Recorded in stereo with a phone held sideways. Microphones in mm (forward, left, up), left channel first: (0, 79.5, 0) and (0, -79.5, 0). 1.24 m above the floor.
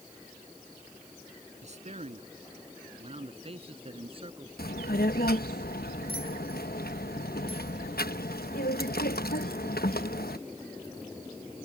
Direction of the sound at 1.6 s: 45° right (ahead or behind).